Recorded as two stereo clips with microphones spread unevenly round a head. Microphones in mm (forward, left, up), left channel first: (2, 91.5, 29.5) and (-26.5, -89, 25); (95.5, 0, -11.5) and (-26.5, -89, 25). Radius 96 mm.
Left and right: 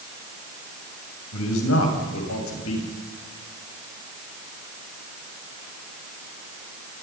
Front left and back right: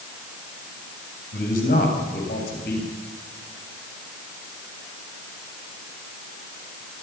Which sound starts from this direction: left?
A man speaking, at 1.3 s.